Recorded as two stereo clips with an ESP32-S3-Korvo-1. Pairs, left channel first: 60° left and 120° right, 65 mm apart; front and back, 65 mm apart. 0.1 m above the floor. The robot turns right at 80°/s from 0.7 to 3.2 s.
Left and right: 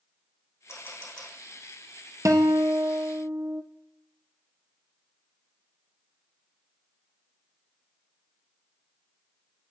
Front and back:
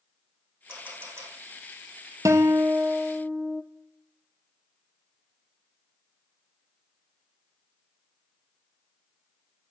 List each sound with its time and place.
0.7 s a camera shutter: 105° left, 6.5 m; by 1.3 s 155° left, 6.5 m
2.2 s a guitar: 150° right, 1.4 m; by 3.6 s 75° right, 1.4 m